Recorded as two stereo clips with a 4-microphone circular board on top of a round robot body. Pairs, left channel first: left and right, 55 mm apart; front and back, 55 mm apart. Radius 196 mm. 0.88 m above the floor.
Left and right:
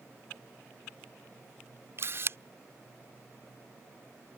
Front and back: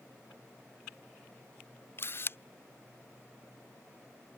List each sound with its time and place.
2.0 s a camera shutter: 45° right